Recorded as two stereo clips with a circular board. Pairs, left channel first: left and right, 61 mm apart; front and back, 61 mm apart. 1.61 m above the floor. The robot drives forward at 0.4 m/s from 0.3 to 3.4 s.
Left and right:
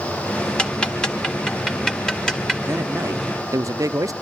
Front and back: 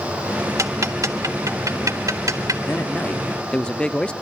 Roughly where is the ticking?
Behind.